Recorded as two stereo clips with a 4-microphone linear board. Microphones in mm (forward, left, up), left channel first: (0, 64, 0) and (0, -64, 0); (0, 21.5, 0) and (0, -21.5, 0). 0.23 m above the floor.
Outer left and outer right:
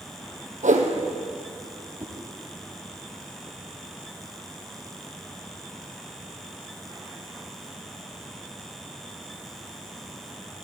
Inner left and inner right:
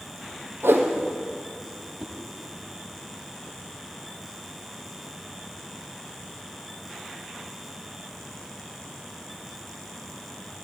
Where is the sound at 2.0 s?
25° right (ahead or behind), 1.0 m.